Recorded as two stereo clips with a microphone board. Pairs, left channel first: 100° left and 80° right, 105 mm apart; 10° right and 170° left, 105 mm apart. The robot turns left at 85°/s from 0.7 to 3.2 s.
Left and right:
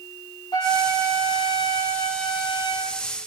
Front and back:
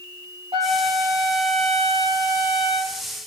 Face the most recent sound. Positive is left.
turn(degrees=-70)